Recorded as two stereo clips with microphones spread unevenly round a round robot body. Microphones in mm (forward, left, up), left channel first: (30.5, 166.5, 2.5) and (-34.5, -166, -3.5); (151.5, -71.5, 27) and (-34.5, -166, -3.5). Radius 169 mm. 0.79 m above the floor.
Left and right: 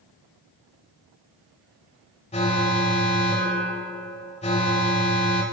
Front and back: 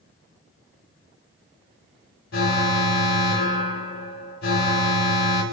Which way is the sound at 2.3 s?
10° left.